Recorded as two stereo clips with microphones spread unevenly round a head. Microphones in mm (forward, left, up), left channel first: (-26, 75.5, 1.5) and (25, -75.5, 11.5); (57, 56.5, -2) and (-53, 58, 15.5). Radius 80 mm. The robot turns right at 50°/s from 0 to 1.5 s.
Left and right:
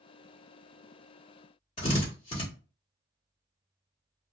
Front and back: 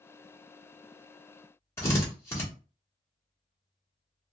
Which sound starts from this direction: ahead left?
A drill, at 1.8 s.